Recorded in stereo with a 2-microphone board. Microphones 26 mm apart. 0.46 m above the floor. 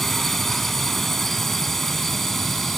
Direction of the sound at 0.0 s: 10° left (ahead or behind).